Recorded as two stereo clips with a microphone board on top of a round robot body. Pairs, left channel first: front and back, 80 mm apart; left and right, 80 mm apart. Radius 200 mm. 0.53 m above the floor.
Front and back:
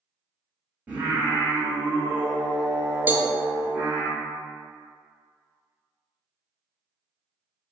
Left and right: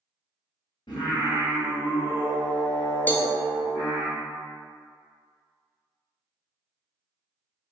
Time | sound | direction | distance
0.9 | singing | 110° left | 0.6 m
3.1 | a cowbell | 135° left | 0.6 m